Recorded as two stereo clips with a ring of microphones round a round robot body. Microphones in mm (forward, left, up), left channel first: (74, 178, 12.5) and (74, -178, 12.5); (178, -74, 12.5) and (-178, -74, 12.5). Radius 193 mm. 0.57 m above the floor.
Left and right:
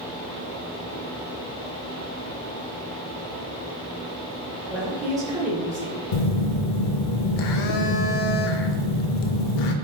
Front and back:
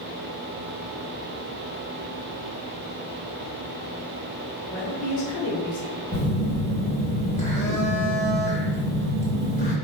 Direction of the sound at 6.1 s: 75° left.